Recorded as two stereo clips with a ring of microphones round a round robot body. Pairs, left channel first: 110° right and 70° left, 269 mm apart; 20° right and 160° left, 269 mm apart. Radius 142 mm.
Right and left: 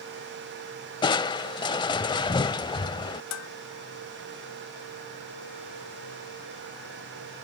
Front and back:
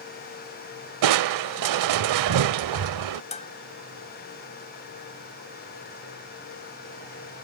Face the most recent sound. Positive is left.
turn(degrees=-90)